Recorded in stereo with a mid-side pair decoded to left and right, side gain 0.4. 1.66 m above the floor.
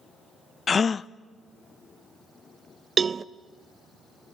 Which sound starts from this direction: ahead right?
A cowbell, at 3.0 s.